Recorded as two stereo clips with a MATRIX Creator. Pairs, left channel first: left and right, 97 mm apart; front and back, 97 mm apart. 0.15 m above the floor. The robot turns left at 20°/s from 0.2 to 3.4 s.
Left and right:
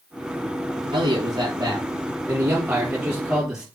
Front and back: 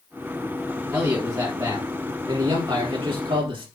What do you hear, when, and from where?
0.9 s a man speaking: 120° right, 3.5 m; by 3.7 s 170° right, 3.5 m